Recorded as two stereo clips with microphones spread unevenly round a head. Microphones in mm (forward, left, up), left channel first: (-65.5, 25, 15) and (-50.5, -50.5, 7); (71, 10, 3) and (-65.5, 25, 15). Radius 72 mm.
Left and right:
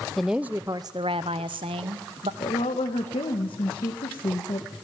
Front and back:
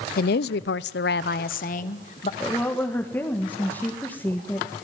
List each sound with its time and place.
0.2 s a woman speaking: 15° left, 0.6 m; by 2.3 s 55° right, 1.2 m
2.4 s a woman speaking: 70° left, 1.7 m